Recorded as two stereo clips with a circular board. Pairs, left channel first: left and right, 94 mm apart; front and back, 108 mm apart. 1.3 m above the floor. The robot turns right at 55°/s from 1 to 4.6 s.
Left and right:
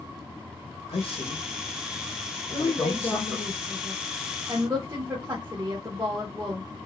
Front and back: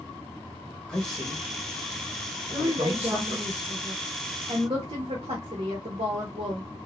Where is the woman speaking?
100° left, 1.3 m; by 6.6 s 145° right, 1.3 m.